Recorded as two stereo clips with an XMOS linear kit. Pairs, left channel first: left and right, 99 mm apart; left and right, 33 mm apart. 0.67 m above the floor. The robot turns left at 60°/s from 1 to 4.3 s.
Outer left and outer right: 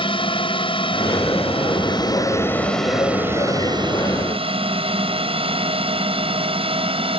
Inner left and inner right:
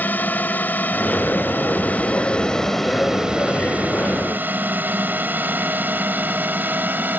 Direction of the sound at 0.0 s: 60° left (ahead or behind).